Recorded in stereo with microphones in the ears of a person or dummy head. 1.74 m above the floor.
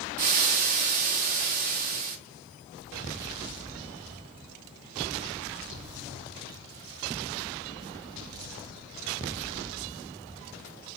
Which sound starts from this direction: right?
Frying, at 0.2 s.